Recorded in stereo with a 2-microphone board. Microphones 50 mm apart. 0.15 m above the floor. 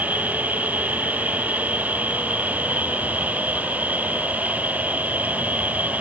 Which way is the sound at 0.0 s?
35° right (ahead or behind).